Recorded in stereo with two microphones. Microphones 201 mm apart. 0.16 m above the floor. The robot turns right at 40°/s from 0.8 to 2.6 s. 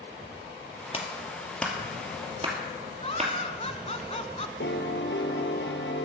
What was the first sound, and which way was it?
A clap, 30° left (ahead or behind).